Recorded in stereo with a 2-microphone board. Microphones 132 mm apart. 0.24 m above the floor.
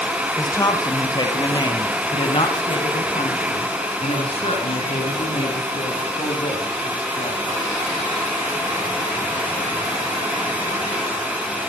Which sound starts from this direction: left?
A woman speaking, at 0.4 s.